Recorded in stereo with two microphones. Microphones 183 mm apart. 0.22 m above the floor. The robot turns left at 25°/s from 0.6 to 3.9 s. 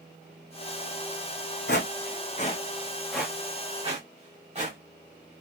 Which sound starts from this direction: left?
Footsteps, at 1.7 s.